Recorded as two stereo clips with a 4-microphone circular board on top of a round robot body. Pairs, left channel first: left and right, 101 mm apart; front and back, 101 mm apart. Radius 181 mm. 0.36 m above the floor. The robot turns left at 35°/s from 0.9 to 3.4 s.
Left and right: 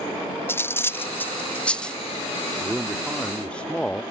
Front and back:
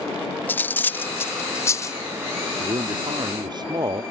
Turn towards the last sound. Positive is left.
turn(degrees=165)